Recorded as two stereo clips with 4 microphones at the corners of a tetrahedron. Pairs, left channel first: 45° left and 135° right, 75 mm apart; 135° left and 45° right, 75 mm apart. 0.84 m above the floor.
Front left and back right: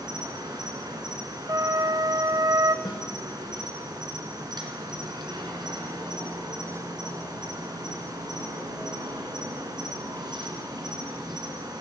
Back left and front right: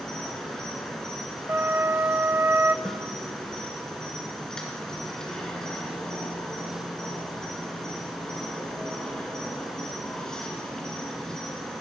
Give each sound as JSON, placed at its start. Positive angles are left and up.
{"t": 0.0, "sound": "an insect", "azimuth_deg": -145, "distance_m": 2.5}
{"t": 1.5, "sound": "a flute", "azimuth_deg": -105, "distance_m": 0.6}
{"t": 2.9, "sound": "a snare drum", "azimuth_deg": 50, "distance_m": 2.5}